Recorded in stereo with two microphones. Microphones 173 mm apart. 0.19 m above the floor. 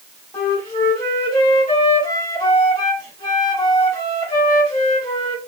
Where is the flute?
30° left (ahead or behind), 1.5 m.